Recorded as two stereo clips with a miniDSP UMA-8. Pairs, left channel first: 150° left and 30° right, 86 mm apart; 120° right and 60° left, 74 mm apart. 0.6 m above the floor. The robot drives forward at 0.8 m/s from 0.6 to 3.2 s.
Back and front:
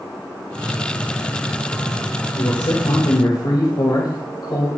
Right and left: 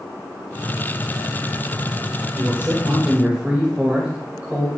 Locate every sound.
2.3 s a man speaking: 120° left, 2.5 m; by 4.7 s 135° left, 3 m